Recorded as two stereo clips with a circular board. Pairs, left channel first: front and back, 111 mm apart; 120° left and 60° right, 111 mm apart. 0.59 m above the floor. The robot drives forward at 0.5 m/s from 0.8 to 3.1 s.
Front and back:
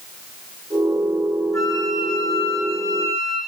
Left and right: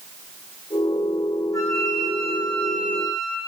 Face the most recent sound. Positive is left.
turn(degrees=65)